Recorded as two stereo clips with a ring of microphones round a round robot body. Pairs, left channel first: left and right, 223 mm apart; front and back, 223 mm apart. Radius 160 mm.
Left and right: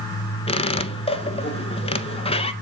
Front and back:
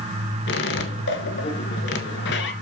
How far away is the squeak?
About 0.9 m.